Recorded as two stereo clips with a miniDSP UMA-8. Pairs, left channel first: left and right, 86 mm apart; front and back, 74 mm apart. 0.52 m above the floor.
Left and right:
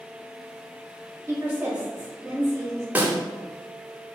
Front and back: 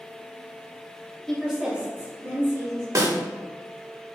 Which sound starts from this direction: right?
A woman speaking, at 1.3 s.